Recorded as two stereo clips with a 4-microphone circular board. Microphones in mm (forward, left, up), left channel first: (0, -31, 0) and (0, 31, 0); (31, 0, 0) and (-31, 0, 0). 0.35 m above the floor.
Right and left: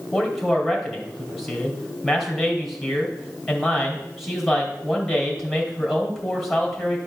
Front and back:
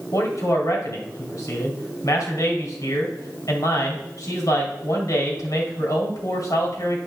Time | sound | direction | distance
0.1 | a man speaking | straight ahead | 2.5 m